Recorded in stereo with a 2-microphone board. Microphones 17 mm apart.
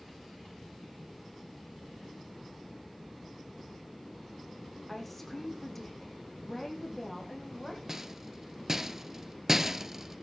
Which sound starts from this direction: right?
A rattle, at 7.9 s.